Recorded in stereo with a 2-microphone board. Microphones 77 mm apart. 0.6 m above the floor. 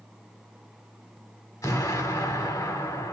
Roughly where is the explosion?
Left.